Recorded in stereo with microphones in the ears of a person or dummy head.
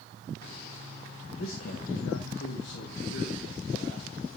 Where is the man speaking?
55° left (ahead or behind), 0.6 m; by 4.4 s 60° left (ahead or behind), 1.9 m.